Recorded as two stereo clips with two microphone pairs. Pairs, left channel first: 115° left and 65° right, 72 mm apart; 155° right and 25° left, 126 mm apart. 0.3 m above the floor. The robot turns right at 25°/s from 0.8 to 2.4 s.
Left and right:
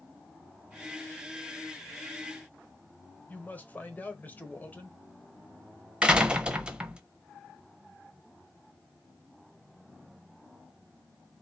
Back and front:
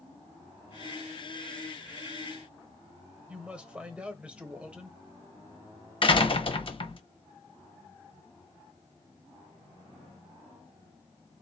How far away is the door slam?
About 0.8 m.